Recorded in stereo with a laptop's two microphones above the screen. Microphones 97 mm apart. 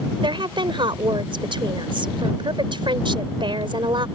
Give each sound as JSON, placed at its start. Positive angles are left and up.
{"t": 0.2, "sound": "a woman speaking", "side_deg": -50}